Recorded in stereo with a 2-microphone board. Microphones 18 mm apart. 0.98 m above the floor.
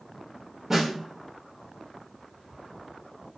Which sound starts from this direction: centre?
A snare drum, at 0.7 s.